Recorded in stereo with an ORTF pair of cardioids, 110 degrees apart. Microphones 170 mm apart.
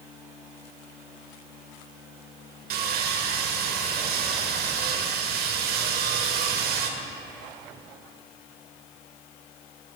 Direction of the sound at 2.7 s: 65° right.